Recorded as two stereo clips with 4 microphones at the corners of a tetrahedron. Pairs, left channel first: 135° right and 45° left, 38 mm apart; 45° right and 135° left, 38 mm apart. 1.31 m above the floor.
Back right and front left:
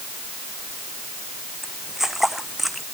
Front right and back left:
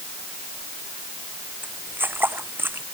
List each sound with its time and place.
1.6 s footsteps: 125° left; by 2.9 s 135° left